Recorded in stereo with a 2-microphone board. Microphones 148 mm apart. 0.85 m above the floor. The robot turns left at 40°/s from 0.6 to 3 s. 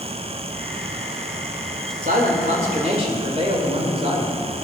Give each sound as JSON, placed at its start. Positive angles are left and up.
{"t": 2.0, "sound": "a man speaking", "azimuth_deg": -100, "distance_m": 2.5}